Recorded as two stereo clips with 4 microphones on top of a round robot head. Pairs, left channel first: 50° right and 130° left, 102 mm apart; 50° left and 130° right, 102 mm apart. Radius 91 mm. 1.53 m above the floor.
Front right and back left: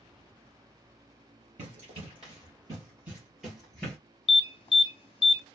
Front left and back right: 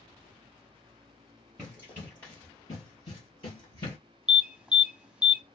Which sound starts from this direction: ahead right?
An alarm, at 4.3 s.